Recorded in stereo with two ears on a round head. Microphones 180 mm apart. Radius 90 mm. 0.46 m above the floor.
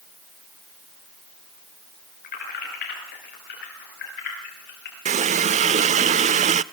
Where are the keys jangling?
50° left (ahead or behind), 6.5 m; by 5.0 s 55° left (ahead or behind), 8 m.